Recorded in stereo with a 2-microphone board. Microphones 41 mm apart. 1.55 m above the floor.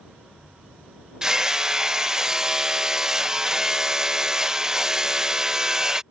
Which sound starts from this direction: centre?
Hammering, at 1.2 s.